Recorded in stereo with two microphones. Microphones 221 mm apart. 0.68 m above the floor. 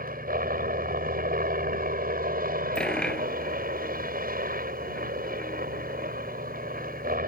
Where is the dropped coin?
5° left (ahead or behind).